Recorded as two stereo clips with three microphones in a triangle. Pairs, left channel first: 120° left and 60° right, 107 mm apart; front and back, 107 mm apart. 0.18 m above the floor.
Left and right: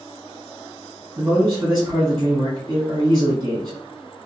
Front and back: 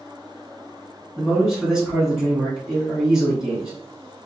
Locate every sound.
1.2 s a man speaking: 95° right, 1.8 m